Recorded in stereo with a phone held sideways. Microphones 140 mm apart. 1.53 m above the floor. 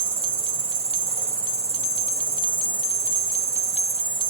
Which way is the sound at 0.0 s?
40° left (ahead or behind).